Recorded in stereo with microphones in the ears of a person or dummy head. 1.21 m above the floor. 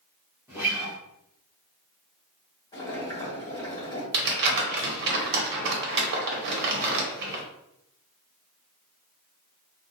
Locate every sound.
0.5 s a guitar: 5° right (ahead or behind), 1.0 m
2.7 s boiling: 25° left (ahead or behind), 1.6 m
4.1 s crumpling: 60° right (ahead or behind), 0.9 m